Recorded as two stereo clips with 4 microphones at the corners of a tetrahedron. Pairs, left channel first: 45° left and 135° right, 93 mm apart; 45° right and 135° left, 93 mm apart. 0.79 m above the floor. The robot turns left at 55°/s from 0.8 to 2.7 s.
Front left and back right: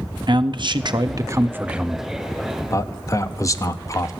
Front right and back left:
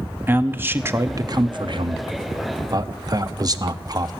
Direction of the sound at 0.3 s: 160° right.